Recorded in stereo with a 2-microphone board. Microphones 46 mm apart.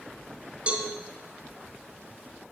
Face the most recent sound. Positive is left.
turn(degrees=-25)  # may be behind; listen again after turning